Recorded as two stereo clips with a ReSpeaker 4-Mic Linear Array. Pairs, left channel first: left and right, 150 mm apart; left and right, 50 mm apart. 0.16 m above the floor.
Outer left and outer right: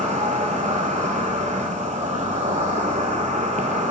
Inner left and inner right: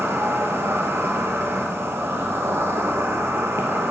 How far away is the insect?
About 0.9 m.